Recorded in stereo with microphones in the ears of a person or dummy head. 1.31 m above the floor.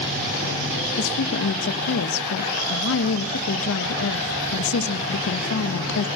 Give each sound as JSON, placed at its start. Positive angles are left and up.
{"t": 1.0, "sound": "a woman speaking", "side_deg": 80, "distance_m": 1.7}